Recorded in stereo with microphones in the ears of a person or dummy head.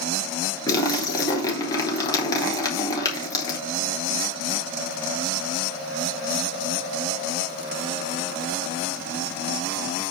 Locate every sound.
0.7 s a splash: 15° left (ahead or behind), 3.5 m